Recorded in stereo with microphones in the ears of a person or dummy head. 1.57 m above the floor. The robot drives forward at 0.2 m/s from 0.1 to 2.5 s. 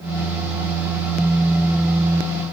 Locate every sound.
Only background noise.